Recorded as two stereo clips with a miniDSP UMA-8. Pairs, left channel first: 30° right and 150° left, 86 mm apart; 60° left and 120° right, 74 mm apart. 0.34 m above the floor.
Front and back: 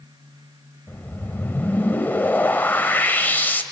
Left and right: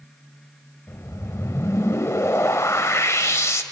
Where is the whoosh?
30° left, 1.0 m.